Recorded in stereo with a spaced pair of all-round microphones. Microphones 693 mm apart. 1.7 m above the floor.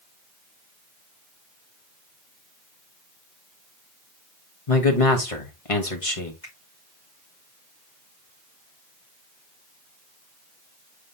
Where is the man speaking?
50° left (ahead or behind), 1.7 m.